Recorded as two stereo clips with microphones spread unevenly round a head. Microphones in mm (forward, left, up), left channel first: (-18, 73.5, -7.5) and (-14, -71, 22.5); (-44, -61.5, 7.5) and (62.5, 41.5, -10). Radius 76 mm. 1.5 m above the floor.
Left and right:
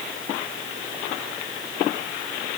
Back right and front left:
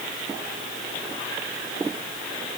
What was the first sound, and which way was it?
Only background noise.